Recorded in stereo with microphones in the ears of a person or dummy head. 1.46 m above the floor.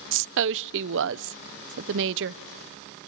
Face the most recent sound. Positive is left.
turn(degrees=-65)  # may be behind; listen again after turning